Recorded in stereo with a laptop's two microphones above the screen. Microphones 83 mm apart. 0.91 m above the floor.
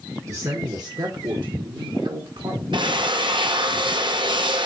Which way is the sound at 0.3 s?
35° right (ahead or behind).